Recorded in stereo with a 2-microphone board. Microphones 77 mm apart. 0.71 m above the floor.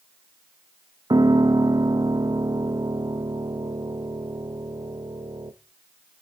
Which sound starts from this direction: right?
A piano, at 1.1 s.